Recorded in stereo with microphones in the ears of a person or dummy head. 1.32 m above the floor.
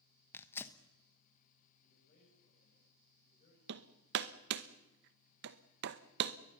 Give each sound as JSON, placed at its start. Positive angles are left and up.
{"t": 0.3, "sound": "tearing paper", "side_deg": 10, "distance_m": 1.1}
{"t": 1.8, "sound": "a man speaking", "side_deg": 40, "distance_m": 7.0}
{"t": 3.7, "sound": "hammering", "side_deg": -60, "distance_m": 0.8}